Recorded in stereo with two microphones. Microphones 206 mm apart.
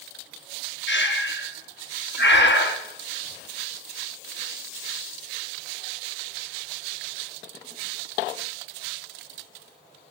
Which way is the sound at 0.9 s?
55° left (ahead or behind).